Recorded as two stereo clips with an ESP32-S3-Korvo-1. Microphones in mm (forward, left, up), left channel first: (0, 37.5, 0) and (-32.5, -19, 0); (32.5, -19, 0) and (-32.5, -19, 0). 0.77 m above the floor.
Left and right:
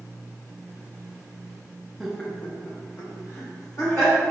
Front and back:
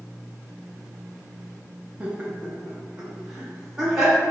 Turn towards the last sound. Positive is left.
turn(degrees=95)